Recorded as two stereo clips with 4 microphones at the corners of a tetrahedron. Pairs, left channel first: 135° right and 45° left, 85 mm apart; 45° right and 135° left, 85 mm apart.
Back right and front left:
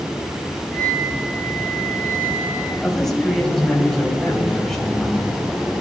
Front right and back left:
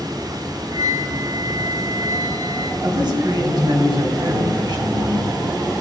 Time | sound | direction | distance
0.7 | a flute | 160° left | 2.5 m
2.8 | a man speaking | 140° left | 3 m